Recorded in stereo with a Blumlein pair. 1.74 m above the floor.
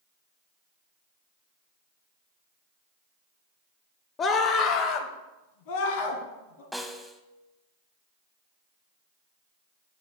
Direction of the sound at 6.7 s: Straight ahead.